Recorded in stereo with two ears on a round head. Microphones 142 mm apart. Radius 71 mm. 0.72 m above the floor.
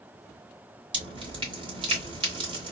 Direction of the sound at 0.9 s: 30° right (ahead or behind).